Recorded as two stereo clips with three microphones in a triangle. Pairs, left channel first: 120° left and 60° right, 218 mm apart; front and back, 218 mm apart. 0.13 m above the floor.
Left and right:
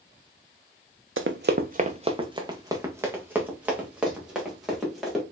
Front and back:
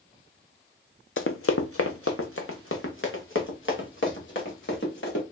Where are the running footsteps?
30° right, 0.6 m; by 5.2 s 30° left, 2.5 m.